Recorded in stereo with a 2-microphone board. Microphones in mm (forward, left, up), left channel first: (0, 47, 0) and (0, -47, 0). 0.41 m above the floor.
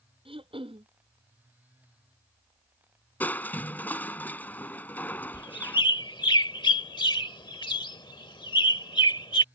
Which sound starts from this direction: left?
A bird, at 5.3 s.